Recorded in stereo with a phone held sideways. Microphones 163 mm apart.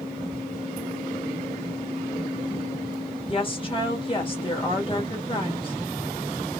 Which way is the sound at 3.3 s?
30° left (ahead or behind).